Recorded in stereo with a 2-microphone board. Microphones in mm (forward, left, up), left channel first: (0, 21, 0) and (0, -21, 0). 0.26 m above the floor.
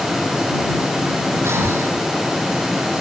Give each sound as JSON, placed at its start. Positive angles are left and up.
{"t": 1.4, "sound": "breathing", "side_deg": -80}